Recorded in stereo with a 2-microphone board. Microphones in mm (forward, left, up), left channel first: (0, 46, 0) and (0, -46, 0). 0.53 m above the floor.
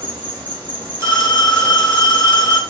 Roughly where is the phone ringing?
Right.